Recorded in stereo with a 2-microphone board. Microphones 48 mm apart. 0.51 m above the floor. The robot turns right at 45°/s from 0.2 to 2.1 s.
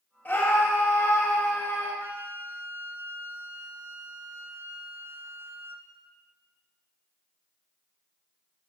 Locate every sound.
0.2 s a scream: 50° left, 1.7 m; by 1.9 s 125° left, 1.7 m
2.0 s a flute: 40° right (ahead or behind), 0.6 m